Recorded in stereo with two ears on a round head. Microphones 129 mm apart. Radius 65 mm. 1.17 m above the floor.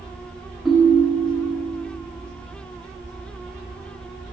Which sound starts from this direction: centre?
A ringtone, at 0.7 s.